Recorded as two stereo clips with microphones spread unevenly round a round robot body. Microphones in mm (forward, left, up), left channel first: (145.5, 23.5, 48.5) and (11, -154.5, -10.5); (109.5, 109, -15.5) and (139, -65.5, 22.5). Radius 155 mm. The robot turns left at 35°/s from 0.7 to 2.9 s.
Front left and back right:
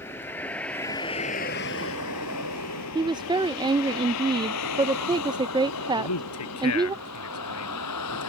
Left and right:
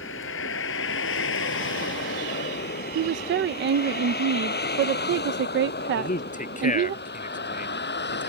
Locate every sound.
0.0 s a vehicle: 135° left; by 8.3 s 80° left
3.0 s a woman speaking: 70° right
6.0 s a man speaking: 55° left